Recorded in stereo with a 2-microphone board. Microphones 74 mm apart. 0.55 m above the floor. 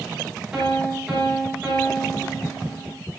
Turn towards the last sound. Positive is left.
turn(degrees=-5)  # may be behind; listen again after turning